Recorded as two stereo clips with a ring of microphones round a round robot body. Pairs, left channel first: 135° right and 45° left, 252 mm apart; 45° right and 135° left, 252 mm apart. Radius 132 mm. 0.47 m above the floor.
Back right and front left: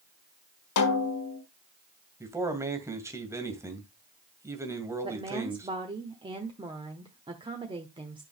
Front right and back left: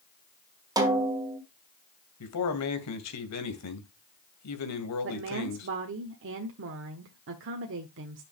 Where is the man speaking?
35° right, 2.5 m.